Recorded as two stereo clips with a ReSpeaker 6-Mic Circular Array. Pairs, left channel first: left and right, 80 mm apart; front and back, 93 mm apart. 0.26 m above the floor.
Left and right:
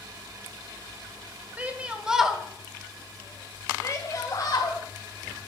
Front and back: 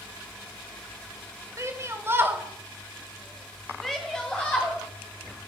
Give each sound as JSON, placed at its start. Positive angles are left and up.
{"t": 1.6, "sound": "a shout", "azimuth_deg": -150, "distance_m": 1.4}